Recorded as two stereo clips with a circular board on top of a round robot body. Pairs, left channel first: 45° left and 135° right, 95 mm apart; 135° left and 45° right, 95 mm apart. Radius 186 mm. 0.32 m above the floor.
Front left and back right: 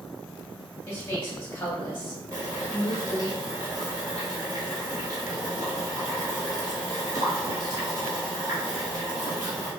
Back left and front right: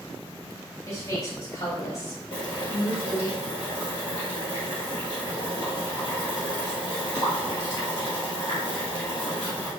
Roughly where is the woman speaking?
Left.